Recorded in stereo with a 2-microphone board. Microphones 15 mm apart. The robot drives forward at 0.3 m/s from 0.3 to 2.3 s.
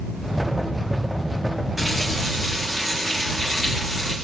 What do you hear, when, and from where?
1.8 s a running tap: 10° right (ahead or behind), 7.5 m